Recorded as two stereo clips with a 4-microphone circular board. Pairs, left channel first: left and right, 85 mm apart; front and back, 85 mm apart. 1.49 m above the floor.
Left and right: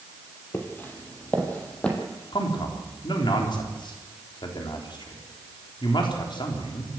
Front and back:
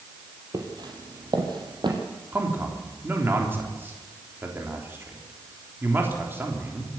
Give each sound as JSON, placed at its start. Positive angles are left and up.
{"t": 0.5, "sound": "footsteps", "azimuth_deg": 150, "distance_m": 3.0}
{"t": 2.3, "sound": "a man speaking", "azimuth_deg": 115, "distance_m": 3.5}